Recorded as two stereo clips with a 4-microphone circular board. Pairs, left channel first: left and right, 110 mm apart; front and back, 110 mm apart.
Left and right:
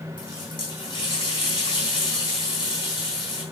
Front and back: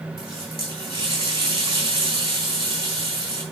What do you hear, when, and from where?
0.2 s a running tap: 140° left, 6 m